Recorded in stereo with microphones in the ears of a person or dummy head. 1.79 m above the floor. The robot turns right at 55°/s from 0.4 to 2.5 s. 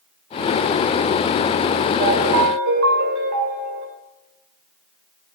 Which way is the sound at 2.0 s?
35° right (ahead or behind).